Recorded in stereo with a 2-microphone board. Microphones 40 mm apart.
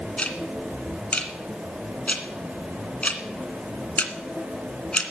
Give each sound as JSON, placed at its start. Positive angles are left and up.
{"t": 0.2, "sound": "ticking", "side_deg": 35, "distance_m": 2.0}